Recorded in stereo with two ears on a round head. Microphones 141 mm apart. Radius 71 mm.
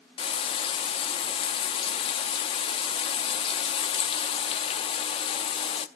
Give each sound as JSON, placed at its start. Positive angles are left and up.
{"t": 0.2, "sound": "frying", "side_deg": 35, "distance_m": 0.9}